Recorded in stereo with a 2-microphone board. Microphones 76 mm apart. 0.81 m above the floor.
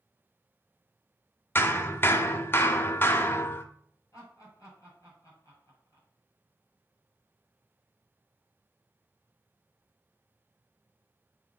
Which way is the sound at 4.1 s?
45° left (ahead or behind).